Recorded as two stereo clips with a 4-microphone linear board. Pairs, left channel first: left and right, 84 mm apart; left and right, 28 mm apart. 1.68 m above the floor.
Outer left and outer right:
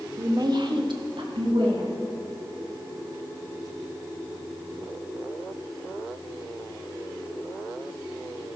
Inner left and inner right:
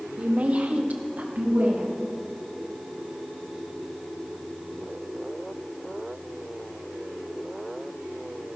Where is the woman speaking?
40° right (ahead or behind), 1.0 m; by 1.9 s 80° right, 2.0 m.